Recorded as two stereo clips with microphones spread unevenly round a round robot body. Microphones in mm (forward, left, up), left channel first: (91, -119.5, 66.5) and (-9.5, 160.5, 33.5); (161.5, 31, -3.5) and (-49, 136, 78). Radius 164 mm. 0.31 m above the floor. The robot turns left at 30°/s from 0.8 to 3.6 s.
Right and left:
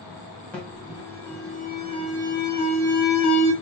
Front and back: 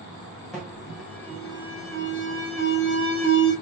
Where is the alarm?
20° left, 1.5 m; by 3.5 s 60° right, 1.5 m.